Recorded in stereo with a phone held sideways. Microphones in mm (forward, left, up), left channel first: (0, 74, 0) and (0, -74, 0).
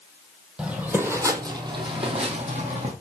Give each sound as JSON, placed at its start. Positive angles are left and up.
{"t": 0.6, "sound": "footsteps", "side_deg": -5, "distance_m": 1.8}